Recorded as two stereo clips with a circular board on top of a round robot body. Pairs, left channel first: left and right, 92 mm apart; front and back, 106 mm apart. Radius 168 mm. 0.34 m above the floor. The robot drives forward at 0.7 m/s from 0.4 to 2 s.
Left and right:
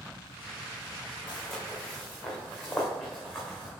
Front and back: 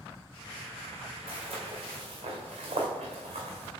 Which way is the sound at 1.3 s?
155° left.